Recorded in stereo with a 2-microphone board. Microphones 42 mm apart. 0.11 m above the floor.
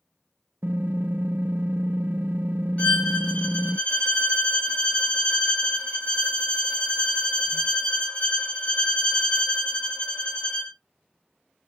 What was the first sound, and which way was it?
Typing on a keyboard, 55° right (ahead or behind).